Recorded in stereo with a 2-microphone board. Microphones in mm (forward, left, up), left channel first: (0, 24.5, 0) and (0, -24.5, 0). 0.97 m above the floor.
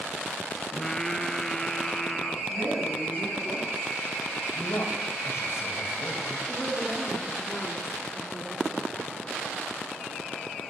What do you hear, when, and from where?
0.7 s singing: 10° left (ahead or behind), 0.9 m
2.5 s a woman speaking: 55° right (ahead or behind), 8.5 m
4.5 s a man speaking: 65° left (ahead or behind), 4.5 m
6.5 s a woman speaking: 5° right (ahead or behind), 2.5 m